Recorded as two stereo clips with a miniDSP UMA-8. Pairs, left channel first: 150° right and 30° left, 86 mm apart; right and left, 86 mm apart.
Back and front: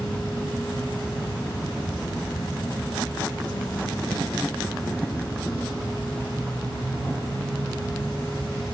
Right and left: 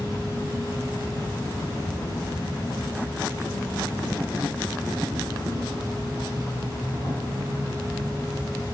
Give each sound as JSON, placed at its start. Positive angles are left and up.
{"t": 0.0, "sound": "an insect", "azimuth_deg": -125, "distance_m": 3.0}